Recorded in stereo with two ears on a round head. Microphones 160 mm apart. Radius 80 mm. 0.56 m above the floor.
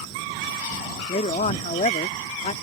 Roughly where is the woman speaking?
Left.